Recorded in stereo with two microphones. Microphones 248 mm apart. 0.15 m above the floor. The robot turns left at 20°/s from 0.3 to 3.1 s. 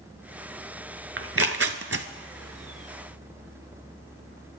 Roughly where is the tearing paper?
Right.